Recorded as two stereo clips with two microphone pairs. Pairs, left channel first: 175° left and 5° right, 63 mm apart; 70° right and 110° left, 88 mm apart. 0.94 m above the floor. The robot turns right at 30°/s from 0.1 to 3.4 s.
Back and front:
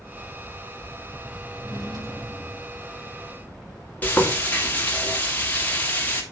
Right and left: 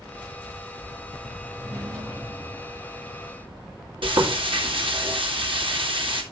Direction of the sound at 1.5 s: 5° right.